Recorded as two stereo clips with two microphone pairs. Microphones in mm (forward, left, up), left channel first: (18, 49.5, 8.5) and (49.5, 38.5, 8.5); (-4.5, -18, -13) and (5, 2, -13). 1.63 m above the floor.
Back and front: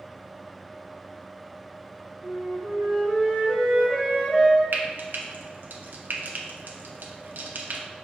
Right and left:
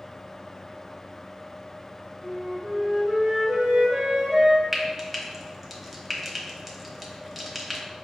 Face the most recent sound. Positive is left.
turn(degrees=-20)